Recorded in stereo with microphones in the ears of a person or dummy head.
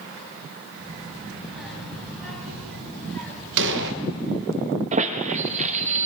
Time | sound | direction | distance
0.8 | a child speaking | 5° right (ahead or behind) | 5 m
3.6 | an explosion | 70° right (ahead or behind) | 0.8 m
4.9 | a squeak | 40° right (ahead or behind) | 0.9 m